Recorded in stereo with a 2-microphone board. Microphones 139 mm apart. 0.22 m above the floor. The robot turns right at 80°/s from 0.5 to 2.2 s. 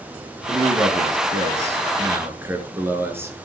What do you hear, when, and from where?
0.5 s a man speaking: 155° right, 3.5 m; by 3.4 s 20° right, 3.5 m